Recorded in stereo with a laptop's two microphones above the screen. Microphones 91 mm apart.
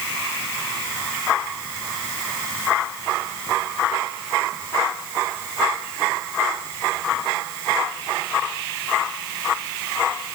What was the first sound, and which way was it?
Only background noise.